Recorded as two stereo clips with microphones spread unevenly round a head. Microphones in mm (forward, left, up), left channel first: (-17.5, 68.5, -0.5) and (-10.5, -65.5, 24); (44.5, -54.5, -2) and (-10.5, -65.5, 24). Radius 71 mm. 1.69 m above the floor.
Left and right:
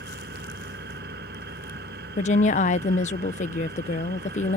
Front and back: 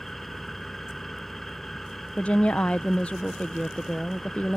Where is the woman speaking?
115° left.